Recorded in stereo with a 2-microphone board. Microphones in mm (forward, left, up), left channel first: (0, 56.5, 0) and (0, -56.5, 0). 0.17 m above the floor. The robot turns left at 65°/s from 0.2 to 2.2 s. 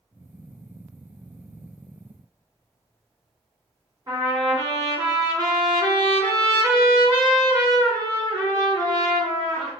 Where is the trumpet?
30° right (ahead or behind), 1.8 m.